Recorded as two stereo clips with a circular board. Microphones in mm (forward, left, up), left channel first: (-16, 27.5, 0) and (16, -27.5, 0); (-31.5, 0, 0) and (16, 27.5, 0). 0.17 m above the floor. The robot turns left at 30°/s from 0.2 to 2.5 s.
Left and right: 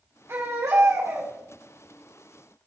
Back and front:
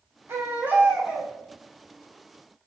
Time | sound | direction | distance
0.3 | a baby crying | 10° right | 4.5 m